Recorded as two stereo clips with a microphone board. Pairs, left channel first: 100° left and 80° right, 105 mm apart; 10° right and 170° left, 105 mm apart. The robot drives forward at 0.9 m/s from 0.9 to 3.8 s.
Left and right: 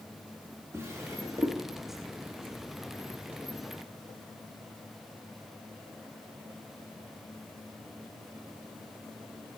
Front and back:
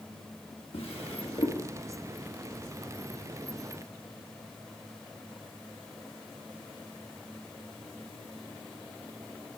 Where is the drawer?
20° right, 1.9 m; by 1.6 s 25° right, 1.4 m.